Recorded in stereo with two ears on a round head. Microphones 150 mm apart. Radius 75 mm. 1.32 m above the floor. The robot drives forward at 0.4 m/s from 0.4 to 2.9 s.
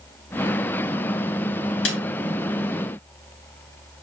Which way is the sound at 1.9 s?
80° left.